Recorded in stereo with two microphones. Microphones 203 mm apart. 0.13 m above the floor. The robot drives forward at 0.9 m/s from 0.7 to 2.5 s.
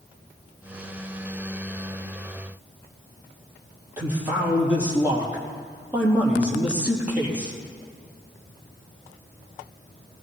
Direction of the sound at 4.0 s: 10° right (ahead or behind).